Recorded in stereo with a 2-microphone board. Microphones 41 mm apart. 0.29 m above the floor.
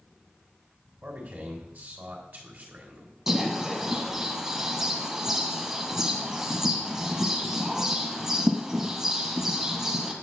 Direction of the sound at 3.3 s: 15° right (ahead or behind).